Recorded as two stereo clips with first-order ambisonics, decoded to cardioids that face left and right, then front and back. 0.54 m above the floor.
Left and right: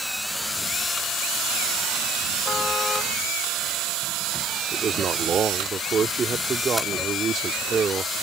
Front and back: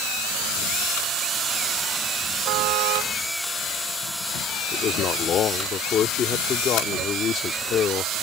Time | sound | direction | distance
2.5 | a car horn | 160° left | ?
4.7 | a man speaking | 35° right | ?